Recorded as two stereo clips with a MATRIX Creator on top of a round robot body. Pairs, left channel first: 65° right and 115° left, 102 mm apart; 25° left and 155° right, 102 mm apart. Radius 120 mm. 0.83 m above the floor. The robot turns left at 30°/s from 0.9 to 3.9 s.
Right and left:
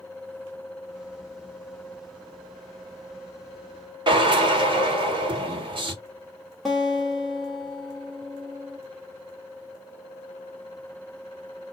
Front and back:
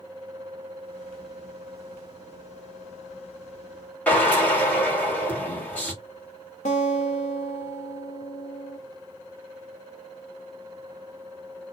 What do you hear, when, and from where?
4.1 s a drill: 95° left, 1.6 m
6.7 s a guitar: 25° left, 0.7 m